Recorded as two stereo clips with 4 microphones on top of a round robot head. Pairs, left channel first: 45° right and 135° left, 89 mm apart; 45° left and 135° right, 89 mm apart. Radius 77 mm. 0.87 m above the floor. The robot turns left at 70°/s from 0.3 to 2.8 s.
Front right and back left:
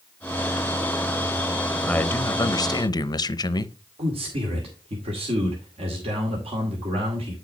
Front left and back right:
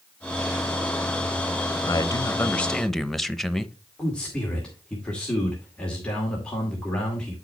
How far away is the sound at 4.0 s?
About 2 m.